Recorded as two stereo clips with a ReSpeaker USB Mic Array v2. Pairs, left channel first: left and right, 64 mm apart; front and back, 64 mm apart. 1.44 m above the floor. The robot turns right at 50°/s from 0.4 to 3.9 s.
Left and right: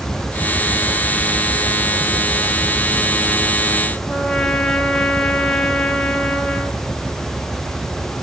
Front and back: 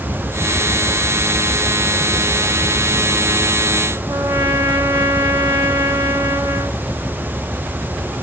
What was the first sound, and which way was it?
A trumpet, 170° left.